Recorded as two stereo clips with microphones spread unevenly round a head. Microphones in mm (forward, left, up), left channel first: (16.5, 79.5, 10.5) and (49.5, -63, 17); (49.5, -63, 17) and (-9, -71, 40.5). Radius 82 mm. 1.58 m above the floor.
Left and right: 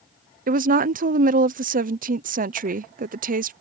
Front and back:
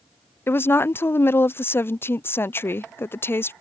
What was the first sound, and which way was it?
A woman speaking, 45° right.